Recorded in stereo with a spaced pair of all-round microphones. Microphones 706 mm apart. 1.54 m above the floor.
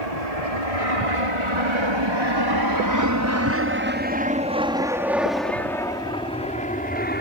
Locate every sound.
0.0 s an aircraft: 55° right (ahead or behind); by 7.2 s 15° left (ahead or behind)